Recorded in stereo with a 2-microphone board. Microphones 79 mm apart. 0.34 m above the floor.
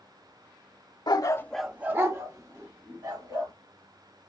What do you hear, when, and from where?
1.1 s a dog barking: 65° left (ahead or behind), 0.6 m; by 3.5 s 50° right (ahead or behind), 2.5 m